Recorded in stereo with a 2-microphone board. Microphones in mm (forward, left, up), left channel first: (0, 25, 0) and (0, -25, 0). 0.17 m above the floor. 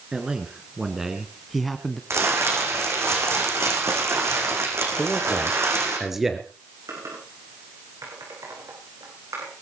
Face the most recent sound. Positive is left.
turn(degrees=-80)